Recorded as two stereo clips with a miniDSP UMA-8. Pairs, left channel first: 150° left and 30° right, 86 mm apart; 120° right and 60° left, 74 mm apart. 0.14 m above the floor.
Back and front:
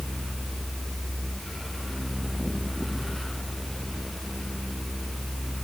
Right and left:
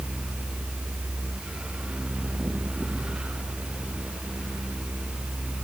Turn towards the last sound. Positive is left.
No sound to turn to.